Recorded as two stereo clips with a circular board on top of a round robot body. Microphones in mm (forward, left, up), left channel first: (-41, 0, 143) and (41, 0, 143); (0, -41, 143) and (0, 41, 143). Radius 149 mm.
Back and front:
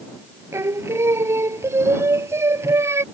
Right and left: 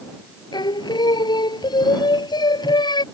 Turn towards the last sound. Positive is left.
turn(degrees=-60)